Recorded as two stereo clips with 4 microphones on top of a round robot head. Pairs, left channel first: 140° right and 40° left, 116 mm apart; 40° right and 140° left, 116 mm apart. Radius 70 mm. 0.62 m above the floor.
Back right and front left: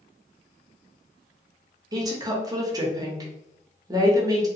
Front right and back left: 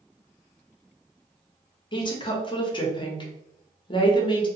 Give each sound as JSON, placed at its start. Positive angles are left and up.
{"t": 1.9, "sound": "a woman speaking", "azimuth_deg": -10, "distance_m": 0.8}